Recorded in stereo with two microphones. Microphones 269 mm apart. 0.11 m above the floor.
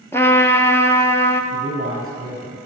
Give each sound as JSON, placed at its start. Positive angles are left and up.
{"t": 0.1, "sound": "a trumpet", "side_deg": 10, "distance_m": 0.8}
{"t": 1.5, "sound": "a man speaking", "side_deg": -35, "distance_m": 3.0}